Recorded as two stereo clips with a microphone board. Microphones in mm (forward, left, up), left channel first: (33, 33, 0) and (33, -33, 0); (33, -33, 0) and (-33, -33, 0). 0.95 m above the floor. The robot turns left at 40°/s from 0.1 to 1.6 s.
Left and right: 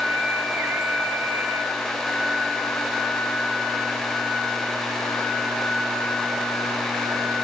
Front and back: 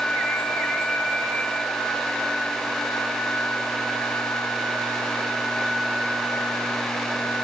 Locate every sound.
Only background noise.